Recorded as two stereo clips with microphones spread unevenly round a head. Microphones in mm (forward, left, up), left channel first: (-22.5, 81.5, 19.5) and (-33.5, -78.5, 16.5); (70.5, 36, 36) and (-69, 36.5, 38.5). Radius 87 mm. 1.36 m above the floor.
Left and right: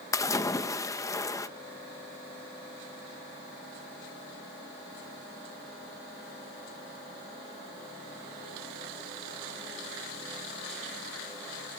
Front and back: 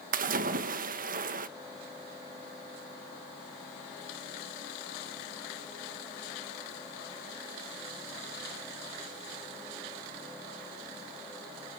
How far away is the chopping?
No chopping in this recording.